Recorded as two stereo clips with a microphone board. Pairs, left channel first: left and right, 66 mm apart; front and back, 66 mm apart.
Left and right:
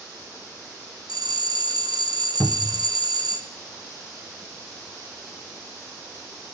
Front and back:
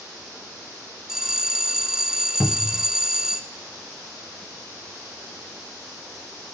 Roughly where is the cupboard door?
Ahead left.